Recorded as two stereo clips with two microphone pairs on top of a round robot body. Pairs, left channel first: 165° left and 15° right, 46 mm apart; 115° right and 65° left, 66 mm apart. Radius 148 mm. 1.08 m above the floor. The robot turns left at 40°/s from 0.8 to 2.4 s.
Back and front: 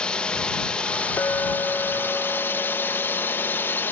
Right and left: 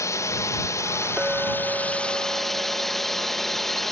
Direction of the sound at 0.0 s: 135° right.